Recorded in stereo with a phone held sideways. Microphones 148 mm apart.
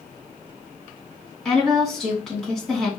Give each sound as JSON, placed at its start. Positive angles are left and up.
{"t": 1.4, "sound": "a woman speaking", "side_deg": 0, "distance_m": 2.5}